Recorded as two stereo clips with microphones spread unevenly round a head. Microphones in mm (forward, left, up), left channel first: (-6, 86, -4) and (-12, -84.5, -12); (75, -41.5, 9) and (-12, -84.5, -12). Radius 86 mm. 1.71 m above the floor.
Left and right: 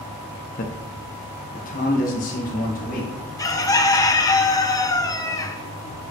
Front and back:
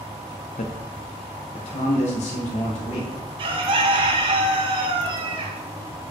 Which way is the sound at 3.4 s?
155° left.